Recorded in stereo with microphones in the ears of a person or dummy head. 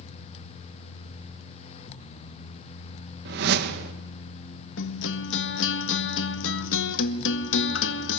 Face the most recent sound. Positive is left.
turn(degrees=80)